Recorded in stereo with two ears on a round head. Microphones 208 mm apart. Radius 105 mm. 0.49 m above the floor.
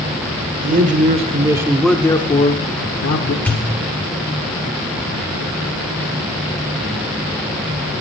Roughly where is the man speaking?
Right.